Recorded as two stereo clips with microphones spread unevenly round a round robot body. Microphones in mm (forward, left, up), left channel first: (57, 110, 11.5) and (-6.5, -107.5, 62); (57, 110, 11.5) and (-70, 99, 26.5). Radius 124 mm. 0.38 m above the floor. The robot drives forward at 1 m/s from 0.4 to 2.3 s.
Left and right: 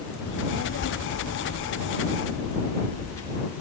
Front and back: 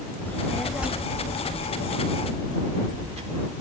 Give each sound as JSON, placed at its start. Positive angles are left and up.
{"t": 0.2, "sound": "a child speaking", "azimuth_deg": 75, "distance_m": 1.1}